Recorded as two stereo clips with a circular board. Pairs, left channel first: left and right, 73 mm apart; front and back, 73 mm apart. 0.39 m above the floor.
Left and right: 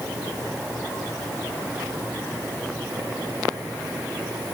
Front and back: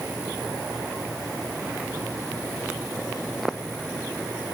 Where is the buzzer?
No buzzer in this recording.